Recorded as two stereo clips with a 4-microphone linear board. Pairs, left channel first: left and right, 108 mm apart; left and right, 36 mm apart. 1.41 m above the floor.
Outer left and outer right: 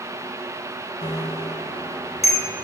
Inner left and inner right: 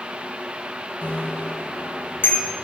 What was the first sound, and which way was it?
A bicycle bell, 75° left (ahead or behind).